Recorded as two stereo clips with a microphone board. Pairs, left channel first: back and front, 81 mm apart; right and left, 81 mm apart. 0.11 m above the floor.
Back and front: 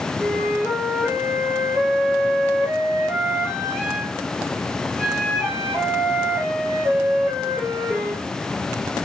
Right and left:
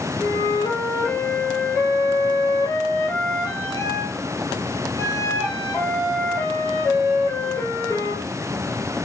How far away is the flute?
About 1.9 m.